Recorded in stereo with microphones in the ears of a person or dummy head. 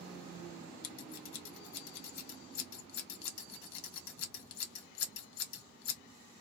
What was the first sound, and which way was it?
Scissors, 75° left (ahead or behind).